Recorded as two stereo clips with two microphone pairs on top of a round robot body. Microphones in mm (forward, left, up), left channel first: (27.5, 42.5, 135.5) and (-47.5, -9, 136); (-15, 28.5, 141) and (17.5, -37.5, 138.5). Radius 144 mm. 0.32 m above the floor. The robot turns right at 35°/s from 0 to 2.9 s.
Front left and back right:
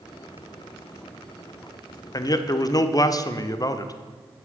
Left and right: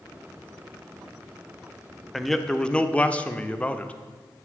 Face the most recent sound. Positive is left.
turn(degrees=50)